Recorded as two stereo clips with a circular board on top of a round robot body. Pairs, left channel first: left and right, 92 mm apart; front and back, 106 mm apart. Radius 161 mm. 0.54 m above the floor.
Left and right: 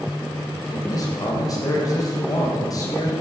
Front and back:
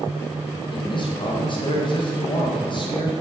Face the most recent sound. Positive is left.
turn(degrees=40)